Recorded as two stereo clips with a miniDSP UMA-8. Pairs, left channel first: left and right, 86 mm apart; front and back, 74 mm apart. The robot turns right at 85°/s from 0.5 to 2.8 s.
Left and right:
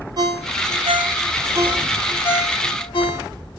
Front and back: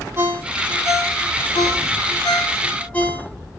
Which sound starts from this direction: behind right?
A ringtone, at 0.2 s.